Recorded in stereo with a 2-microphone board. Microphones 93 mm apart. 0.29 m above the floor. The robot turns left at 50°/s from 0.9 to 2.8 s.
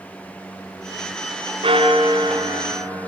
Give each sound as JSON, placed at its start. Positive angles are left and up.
{"t": 1.6, "sound": "a bell", "azimuth_deg": -85, "distance_m": 3.5}